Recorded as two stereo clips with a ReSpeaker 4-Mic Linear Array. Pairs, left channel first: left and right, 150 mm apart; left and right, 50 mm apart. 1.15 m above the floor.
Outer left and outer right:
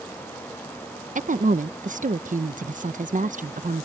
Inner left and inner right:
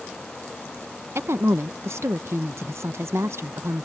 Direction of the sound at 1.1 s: 55° right (ahead or behind).